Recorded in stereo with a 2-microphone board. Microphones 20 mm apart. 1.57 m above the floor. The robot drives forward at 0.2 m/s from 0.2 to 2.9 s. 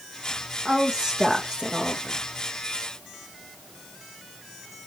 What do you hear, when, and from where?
0.7 s a woman speaking: 40° right (ahead or behind), 2.5 m